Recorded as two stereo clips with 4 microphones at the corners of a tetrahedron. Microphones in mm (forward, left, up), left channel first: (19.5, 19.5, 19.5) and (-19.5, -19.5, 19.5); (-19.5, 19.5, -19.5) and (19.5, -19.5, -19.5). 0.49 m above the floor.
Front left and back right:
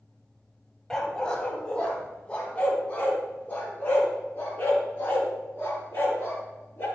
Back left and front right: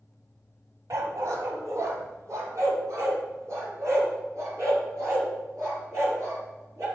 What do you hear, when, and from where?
0.9 s a dog barking: 35° right, 1.3 m; by 6.9 s 10° right, 4 m